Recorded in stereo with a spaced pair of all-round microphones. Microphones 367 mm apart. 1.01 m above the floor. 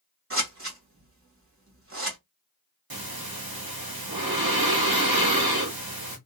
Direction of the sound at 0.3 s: 35° right (ahead or behind).